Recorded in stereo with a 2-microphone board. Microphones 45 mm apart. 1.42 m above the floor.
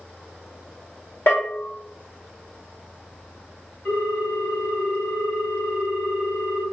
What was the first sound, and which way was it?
A bell, 50° left (ahead or behind).